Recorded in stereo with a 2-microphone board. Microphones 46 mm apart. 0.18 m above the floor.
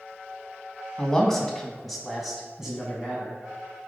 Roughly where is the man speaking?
Centre.